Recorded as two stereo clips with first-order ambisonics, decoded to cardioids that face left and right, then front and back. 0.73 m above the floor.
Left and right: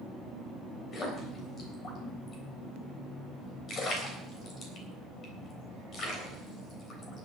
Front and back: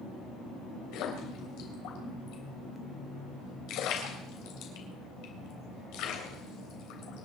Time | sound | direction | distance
0.9 | a splash | 30° left | 3.5 m